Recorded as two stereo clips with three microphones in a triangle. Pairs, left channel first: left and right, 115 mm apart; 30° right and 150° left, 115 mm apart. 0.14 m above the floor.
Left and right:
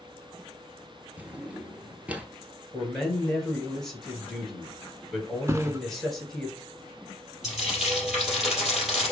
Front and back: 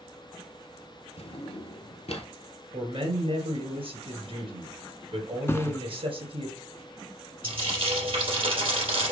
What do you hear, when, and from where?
1.2 s a drawer: 15° right, 0.8 m
2.7 s a man speaking: 175° left, 2.5 m
5.5 s a thud: 65° right, 0.6 m
7.4 s frying: 175° right, 3 m